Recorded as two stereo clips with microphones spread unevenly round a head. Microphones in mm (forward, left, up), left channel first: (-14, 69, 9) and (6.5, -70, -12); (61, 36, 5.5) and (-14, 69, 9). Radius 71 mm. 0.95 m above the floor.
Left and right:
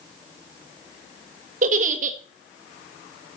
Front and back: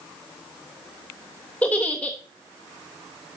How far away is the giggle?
About 1.2 m.